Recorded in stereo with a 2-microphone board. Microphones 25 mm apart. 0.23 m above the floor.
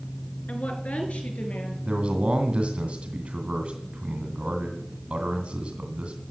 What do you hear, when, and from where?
0.5 s a woman speaking: 65° left (ahead or behind), 3 m; by 1.8 s 75° left (ahead or behind), 4.5 m
1.9 s a man speaking: 45° right (ahead or behind), 1.9 m